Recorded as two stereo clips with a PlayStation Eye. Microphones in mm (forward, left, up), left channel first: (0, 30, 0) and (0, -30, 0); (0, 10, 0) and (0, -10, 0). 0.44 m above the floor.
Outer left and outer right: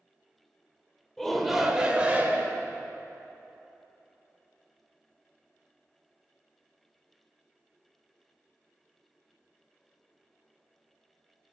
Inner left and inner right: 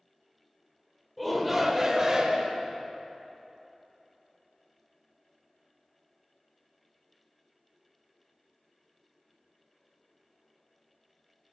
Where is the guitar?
No guitar in this recording.